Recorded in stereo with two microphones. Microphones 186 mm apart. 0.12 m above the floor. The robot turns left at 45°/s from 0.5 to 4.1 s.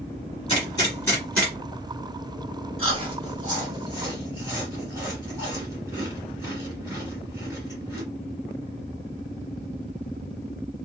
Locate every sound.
0.5 s a gunshot: 30° left (ahead or behind), 1.9 m; by 1.5 s centre (ahead or behind), 1.9 m
2.8 s chewing: 30° right (ahead or behind), 1.9 m; by 8.0 s 15° right (ahead or behind), 1.9 m